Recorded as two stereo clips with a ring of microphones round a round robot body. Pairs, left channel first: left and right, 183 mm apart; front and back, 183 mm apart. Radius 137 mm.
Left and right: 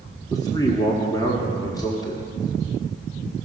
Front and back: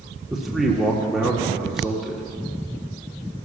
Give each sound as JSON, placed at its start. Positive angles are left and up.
{"t": 0.3, "sound": "a man speaking", "azimuth_deg": 95, "distance_m": 1.4}